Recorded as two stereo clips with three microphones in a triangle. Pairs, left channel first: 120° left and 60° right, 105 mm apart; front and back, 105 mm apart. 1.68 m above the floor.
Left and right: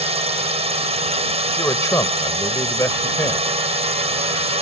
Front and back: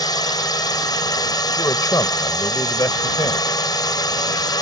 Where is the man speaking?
55° left.